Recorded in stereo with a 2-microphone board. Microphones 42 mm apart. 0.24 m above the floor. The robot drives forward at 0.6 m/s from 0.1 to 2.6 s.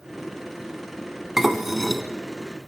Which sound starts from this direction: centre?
Dishes clattering, at 1.4 s.